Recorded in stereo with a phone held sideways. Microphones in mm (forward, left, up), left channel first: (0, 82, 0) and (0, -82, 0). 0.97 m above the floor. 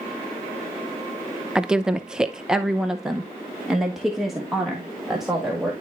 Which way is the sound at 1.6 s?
5° right (ahead or behind).